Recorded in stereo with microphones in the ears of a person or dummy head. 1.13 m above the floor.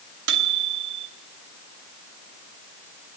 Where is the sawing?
I don't hear sawing.